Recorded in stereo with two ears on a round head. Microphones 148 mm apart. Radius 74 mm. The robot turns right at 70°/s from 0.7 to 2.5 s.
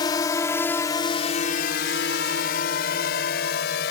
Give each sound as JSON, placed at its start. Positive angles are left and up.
{"t": 0.0, "sound": "a drone", "side_deg": 25}